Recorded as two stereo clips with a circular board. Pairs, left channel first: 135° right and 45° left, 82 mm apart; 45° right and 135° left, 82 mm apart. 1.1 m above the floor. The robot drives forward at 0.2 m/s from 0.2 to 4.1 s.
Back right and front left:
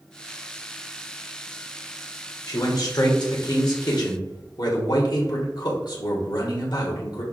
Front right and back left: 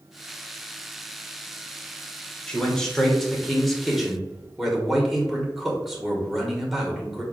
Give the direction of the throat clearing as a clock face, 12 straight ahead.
No throat clearing in this recording.